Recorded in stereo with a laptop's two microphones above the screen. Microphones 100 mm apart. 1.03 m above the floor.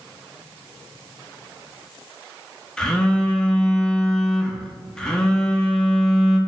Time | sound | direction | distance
2.8 | a phone buzzing | 5° left (ahead or behind) | 0.5 m